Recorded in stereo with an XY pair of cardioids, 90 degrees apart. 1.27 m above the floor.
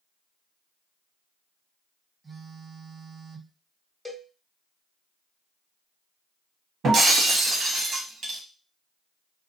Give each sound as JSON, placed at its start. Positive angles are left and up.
{"t": 2.2, "sound": "a phone buzzing", "azimuth_deg": -25, "distance_m": 1.0}
{"t": 4.0, "sound": "a cowbell", "azimuth_deg": 0, "distance_m": 1.3}
{"t": 6.8, "sound": "breaking glass", "azimuth_deg": -65, "distance_m": 1.2}